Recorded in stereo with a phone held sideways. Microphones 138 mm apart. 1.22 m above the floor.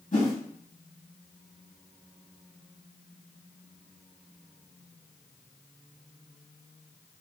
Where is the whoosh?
75° left (ahead or behind), 2.5 m.